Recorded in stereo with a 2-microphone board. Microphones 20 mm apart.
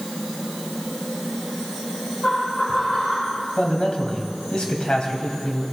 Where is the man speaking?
50° left (ahead or behind), 2 m.